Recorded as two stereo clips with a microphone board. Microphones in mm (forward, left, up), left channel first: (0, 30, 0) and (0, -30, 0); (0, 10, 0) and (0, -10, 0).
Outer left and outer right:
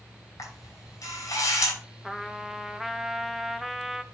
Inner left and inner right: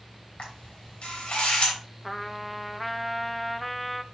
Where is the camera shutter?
55° left (ahead or behind), 4.5 m.